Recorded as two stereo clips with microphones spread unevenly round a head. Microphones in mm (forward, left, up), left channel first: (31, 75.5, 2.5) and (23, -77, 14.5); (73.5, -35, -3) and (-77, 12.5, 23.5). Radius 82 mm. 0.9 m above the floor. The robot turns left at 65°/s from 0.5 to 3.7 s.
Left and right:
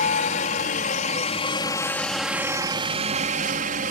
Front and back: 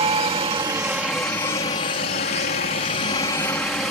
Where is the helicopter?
105° left; by 3.9 s 100° right.